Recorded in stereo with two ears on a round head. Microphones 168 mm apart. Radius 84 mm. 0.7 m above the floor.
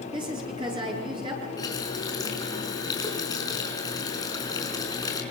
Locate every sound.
0.1 s a woman speaking: 25° right (ahead or behind), 9 m
1.6 s a running tap: 20° left (ahead or behind), 5 m